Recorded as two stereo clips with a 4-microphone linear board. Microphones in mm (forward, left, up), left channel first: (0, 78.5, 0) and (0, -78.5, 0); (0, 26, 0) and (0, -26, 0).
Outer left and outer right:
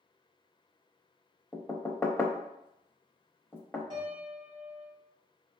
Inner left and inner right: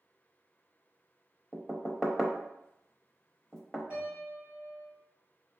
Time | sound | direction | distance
1.5 | knocking | 10° left (ahead or behind) | 0.6 m
3.9 | a piano | 30° right (ahead or behind) | 1.8 m